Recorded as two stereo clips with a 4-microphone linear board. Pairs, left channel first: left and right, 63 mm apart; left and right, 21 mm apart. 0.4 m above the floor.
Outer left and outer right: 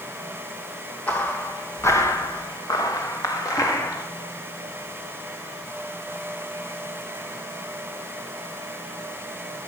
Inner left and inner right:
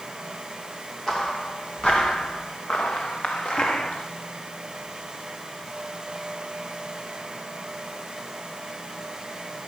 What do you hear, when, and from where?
1.1 s footsteps: 30° left (ahead or behind), 2.5 m; by 4.1 s 60° left (ahead or behind), 3 m